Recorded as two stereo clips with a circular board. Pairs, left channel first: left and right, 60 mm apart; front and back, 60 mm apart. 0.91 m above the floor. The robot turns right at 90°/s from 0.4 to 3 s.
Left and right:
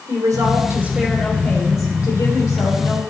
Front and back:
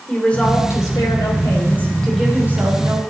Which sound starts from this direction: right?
A woman speaking, at 0.1 s.